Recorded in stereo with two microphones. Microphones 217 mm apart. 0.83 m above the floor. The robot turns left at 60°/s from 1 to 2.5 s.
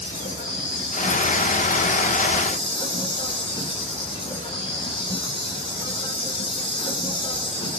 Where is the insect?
115° left, 4.5 m; by 7.8 s 25° left, 4.5 m.